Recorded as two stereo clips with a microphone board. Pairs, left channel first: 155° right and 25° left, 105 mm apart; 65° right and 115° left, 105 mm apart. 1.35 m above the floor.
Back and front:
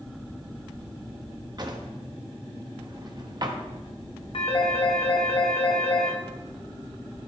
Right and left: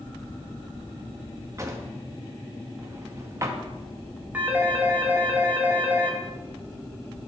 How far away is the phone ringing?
About 1.6 m.